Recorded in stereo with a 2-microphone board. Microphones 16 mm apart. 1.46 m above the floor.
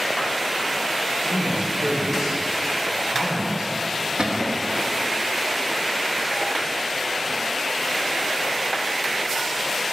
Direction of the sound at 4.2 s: 70° right (ahead or behind).